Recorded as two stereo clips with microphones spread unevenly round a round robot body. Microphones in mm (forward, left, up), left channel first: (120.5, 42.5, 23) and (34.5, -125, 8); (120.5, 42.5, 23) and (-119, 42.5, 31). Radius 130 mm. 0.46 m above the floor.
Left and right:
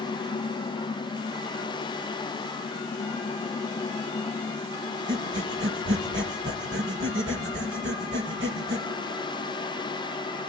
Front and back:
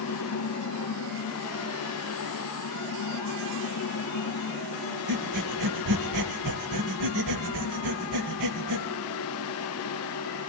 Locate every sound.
5.1 s breathing: 170° right, 1.8 m